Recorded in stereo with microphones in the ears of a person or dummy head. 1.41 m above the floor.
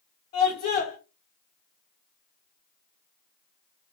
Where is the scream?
35° left (ahead or behind), 1.4 m.